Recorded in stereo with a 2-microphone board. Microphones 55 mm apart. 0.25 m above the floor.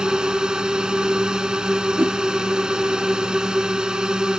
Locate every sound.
0.0 s a drone: 10° right (ahead or behind)
2.0 s a whoosh: 40° right (ahead or behind)